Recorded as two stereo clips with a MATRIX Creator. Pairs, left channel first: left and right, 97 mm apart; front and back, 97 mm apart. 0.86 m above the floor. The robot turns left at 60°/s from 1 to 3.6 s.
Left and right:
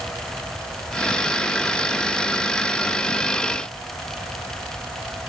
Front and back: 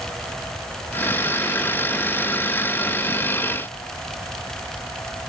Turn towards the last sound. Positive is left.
No sound to turn to.